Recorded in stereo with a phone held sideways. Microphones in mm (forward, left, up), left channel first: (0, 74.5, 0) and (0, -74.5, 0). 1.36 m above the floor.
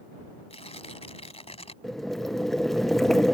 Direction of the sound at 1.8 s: Centre (ahead or behind).